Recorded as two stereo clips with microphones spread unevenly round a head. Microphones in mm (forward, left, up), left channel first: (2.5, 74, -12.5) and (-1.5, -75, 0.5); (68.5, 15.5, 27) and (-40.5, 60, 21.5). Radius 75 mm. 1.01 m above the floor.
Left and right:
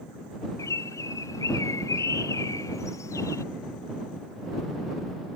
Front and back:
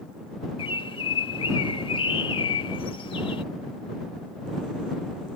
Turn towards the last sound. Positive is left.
turn(degrees=20)